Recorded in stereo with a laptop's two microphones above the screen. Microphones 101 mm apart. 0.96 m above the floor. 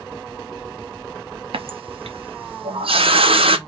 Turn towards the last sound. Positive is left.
turn(degrees=-70)  # may be behind; listen again after turning